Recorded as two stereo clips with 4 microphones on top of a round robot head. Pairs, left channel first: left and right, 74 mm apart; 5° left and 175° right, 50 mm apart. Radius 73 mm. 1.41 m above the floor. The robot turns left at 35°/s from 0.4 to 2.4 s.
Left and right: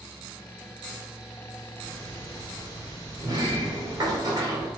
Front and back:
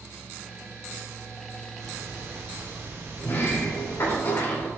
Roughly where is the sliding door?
Ahead right.